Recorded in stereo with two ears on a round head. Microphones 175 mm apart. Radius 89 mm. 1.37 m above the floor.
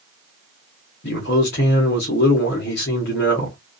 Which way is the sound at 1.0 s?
55° left (ahead or behind).